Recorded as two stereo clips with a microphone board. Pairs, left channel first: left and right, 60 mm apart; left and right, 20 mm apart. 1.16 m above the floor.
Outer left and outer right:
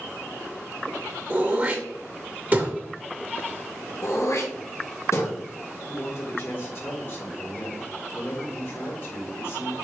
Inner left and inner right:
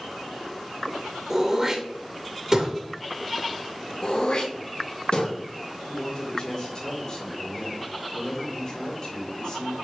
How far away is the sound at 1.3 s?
About 1.8 m.